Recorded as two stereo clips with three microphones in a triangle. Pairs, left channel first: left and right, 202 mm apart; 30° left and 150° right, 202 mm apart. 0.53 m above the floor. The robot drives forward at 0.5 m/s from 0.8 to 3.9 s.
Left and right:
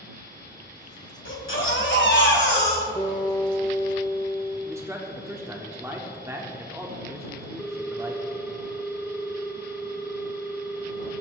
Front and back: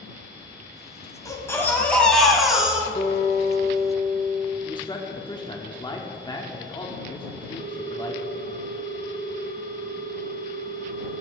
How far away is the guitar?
About 2 m.